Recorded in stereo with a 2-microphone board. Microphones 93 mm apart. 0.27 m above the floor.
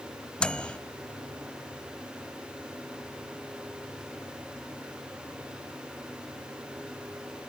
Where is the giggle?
No giggle in this recording.